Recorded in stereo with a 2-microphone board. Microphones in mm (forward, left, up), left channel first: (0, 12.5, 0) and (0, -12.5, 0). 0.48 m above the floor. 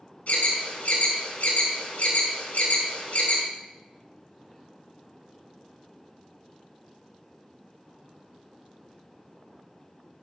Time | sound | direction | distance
0.3 | an alarm | 65° left (ahead or behind) | 4 m